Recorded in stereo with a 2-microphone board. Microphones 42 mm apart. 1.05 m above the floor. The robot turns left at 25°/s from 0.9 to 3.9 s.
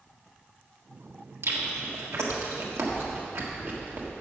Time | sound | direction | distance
1.4 | chewing | 70° right (ahead or behind) | 1.4 m